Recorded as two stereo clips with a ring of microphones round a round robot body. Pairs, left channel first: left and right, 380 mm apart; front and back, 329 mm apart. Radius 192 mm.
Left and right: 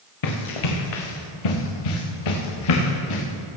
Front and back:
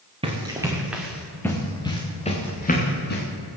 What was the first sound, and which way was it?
Running footsteps, 105° left.